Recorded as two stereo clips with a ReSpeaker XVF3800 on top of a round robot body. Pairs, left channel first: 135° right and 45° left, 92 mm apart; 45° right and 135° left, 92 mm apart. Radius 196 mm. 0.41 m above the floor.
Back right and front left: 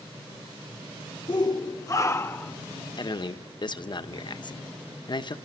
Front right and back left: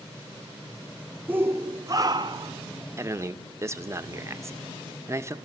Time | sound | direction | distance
1.3 | a shout | 160° right | 1.4 m
3.0 | a man speaking | 165° right | 1.4 m